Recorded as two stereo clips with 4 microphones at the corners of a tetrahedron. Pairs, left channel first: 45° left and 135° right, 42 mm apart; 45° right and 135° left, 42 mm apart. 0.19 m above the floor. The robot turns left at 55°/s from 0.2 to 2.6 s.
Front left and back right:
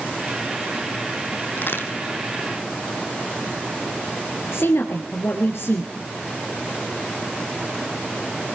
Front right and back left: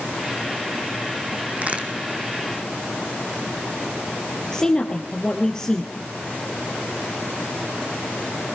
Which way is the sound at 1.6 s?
85° left.